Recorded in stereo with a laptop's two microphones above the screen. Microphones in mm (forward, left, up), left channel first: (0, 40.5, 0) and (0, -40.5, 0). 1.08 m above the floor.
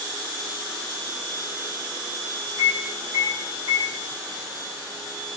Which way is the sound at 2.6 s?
75° right (ahead or behind).